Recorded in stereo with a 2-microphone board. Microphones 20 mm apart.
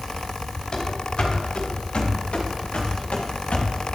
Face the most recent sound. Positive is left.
turn(degrees=85)